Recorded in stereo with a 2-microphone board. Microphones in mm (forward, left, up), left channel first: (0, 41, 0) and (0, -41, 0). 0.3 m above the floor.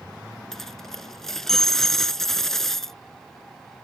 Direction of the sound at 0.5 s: 5° left (ahead or behind).